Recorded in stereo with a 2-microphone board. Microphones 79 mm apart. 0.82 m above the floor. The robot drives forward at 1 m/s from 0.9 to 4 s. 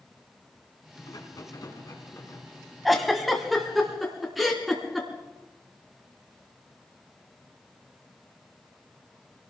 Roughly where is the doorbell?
I don't hear a doorbell.